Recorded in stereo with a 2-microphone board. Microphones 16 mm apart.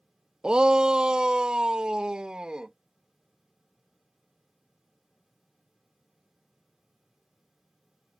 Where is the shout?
60° right (ahead or behind); by 2.7 s 80° right.